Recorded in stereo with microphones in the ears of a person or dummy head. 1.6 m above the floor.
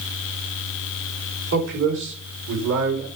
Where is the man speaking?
75° right (ahead or behind), 6 m; by 3.1 s 65° right (ahead or behind), 5.5 m.